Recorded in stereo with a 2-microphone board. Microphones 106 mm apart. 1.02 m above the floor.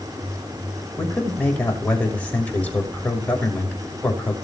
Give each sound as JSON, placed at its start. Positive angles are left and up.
{"t": 1.0, "sound": "a man speaking", "side_deg": 15, "distance_m": 6.0}